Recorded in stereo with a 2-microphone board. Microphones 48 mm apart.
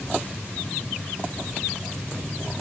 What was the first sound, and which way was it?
Only background noise.